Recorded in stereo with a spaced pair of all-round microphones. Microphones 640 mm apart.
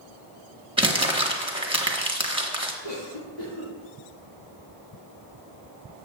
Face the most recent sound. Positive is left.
turn(degrees=65)  # may be behind; listen again after turning